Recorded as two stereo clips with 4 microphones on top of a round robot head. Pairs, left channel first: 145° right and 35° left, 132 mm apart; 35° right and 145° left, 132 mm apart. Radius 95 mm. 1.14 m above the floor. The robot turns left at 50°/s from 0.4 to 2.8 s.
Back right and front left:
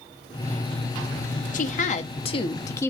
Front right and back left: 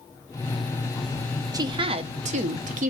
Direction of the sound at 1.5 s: 150° right.